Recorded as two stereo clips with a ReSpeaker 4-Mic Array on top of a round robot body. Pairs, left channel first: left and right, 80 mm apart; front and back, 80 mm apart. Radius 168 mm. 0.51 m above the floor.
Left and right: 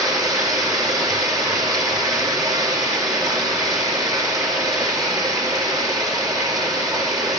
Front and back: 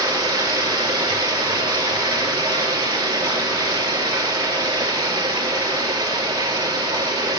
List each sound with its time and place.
0.0 s running water: 135° right, 3.5 m